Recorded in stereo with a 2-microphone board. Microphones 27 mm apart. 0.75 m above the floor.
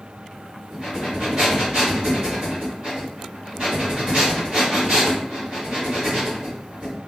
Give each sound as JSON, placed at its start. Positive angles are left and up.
{"t": 0.7, "sound": "breathing", "side_deg": -45, "distance_m": 1.4}